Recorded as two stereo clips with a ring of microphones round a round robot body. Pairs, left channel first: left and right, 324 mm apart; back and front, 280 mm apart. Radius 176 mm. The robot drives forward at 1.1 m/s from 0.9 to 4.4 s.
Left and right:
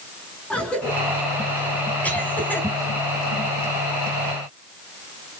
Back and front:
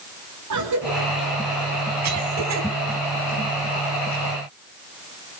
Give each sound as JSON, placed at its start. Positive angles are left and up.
{"t": 0.5, "sound": "a cough", "azimuth_deg": 5, "distance_m": 5.0}